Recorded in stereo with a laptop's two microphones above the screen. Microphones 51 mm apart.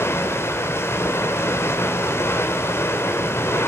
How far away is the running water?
About 2.5 m.